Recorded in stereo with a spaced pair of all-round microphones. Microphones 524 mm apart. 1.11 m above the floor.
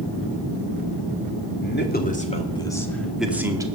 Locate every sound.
1.6 s a man speaking: 20° left (ahead or behind), 2 m; by 3.7 s 5° right (ahead or behind), 2 m